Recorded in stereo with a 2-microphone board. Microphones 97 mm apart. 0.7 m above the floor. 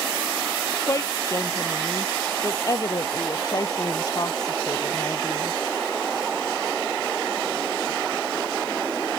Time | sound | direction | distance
0.9 | a woman speaking | 35° left (ahead or behind) | ?